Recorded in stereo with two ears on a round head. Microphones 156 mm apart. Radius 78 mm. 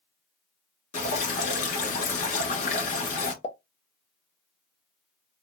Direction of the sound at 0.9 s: 45° left (ahead or behind).